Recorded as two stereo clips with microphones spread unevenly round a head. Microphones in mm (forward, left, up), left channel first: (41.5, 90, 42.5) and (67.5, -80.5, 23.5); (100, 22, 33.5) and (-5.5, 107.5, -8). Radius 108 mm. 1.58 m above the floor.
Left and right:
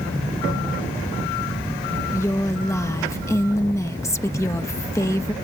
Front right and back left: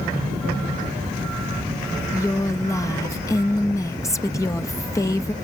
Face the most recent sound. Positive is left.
turn(degrees=25)